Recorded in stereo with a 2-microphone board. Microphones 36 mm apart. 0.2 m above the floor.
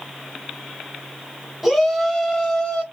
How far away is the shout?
About 1.2 m.